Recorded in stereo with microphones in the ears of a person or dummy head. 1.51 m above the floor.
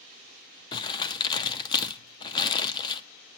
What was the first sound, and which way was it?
Crumpling, 25° left (ahead or behind).